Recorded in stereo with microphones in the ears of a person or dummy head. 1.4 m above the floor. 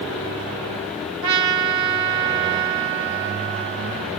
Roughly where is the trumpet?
Right.